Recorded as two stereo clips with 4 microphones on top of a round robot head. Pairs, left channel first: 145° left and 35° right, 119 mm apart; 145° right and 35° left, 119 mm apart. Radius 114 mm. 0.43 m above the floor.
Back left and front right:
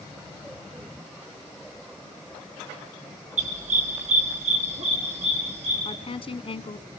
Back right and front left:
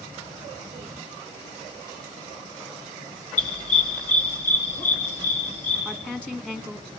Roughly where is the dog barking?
Ahead right.